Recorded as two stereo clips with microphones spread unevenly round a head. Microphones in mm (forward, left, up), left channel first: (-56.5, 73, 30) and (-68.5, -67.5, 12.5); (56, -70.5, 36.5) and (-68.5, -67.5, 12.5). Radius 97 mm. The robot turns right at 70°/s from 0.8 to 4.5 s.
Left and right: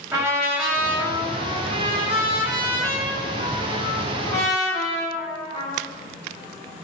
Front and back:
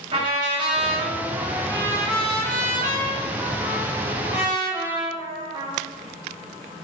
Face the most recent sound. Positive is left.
turn(degrees=95)